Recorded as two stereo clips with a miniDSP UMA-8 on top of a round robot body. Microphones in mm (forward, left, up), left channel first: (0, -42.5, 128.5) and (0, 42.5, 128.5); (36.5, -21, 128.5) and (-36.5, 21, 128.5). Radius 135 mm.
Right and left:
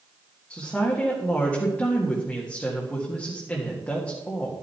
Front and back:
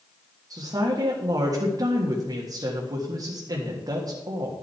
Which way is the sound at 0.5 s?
170° right.